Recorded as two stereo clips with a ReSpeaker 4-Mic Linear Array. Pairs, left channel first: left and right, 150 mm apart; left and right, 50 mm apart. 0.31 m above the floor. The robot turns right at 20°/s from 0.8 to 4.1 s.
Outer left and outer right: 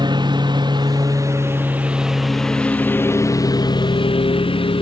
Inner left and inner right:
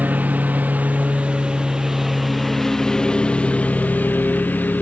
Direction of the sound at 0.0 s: 30° right.